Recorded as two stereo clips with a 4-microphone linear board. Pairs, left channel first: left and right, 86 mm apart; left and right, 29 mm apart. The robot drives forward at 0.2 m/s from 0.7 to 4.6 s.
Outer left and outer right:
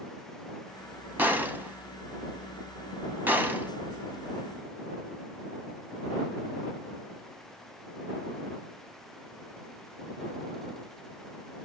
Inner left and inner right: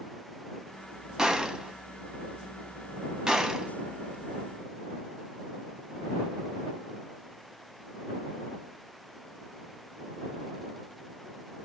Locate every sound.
1.2 s a gunshot: 20° right (ahead or behind), 0.6 m